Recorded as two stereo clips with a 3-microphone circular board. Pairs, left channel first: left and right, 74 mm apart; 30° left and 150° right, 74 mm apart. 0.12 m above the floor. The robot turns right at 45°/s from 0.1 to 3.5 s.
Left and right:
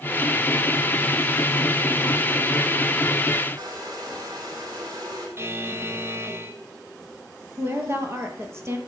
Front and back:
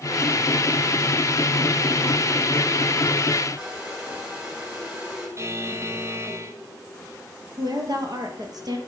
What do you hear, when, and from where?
3.6 s a hair dryer: 70° right, 6.5 m
5.4 s a buzzer: 125° right, 1.0 m
7.6 s a woman speaking: 135° right, 2.5 m